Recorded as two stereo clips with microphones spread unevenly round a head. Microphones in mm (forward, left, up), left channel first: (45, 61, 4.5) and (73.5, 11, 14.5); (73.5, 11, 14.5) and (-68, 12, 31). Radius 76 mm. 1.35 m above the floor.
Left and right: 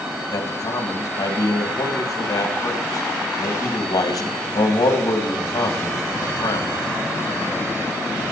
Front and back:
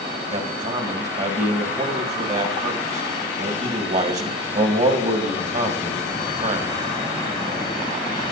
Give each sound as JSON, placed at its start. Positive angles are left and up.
{"t": 0.3, "sound": "a man speaking", "azimuth_deg": 135, "distance_m": 1.9}